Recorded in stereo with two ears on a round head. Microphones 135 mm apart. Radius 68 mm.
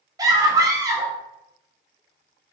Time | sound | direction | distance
0.2 | a scream | 25° right (ahead or behind) | 0.9 m